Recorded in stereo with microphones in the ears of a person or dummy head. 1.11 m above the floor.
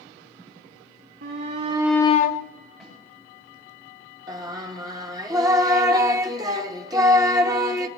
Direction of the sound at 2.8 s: Centre (ahead or behind).